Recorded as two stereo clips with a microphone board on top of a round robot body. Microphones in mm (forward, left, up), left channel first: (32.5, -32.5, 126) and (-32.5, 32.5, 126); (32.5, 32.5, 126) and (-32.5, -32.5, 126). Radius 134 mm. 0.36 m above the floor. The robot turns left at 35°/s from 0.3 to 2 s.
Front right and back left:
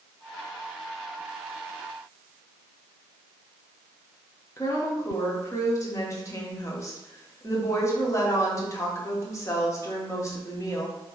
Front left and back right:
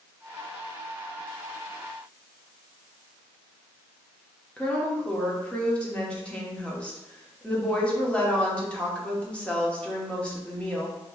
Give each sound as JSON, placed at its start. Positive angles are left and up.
{"t": 4.6, "sound": "a woman speaking", "azimuth_deg": -25, "distance_m": 1.3}